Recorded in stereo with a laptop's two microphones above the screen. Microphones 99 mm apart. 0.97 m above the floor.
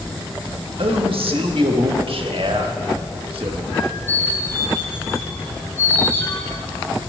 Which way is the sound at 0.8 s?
70° right (ahead or behind).